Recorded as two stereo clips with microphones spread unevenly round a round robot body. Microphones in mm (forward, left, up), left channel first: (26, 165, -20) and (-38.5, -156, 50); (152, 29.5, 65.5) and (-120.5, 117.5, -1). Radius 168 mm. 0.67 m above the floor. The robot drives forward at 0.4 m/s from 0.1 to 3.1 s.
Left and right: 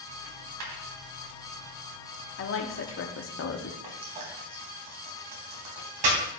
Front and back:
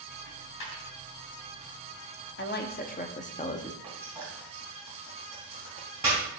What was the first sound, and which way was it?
A dropped coin, 60° right.